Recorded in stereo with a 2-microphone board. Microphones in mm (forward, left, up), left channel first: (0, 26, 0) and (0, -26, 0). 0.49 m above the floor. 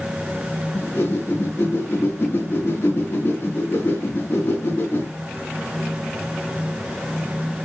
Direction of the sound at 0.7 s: 50° left (ahead or behind).